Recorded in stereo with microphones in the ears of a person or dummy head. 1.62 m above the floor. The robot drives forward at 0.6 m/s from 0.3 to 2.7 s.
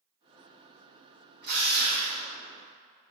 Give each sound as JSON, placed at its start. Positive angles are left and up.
{"t": 1.4, "sound": "a drill", "side_deg": -55, "distance_m": 2.0}